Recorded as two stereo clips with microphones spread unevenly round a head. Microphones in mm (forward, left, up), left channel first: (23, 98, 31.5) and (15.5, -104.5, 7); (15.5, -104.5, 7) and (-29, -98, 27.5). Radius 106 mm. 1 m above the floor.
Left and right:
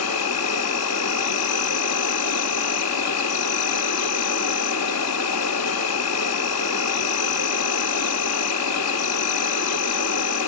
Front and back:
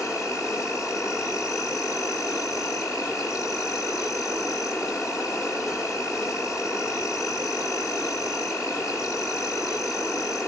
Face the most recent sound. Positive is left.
turn(degrees=90)